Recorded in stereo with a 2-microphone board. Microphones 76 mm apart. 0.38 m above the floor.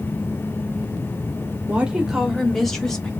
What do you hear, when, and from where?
1.7 s a woman speaking: 20° right (ahead or behind), 0.8 m; by 3.1 s 10° left (ahead or behind), 1.4 m